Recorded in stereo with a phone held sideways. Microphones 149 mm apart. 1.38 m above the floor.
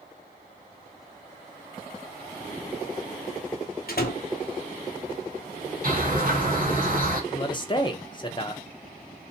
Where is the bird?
60° right (ahead or behind), 1.6 m.